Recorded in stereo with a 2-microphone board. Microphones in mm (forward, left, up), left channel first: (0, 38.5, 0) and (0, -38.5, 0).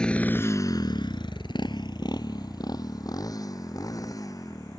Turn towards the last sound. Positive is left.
turn(degrees=50)  # may be behind; listen again after turning